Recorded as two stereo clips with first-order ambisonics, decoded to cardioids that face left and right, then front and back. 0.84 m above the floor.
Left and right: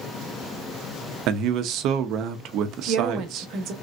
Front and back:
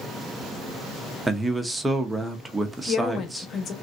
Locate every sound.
1.3 s a man speaking: 100° right, 0.6 m
2.8 s a woman speaking: 55° right, 0.9 m